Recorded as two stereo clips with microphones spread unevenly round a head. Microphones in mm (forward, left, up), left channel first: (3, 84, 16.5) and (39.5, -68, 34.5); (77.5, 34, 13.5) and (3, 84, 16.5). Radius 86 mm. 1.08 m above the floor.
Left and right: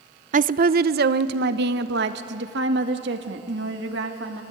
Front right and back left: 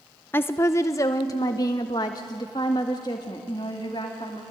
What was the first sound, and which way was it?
A woman speaking, 90° right.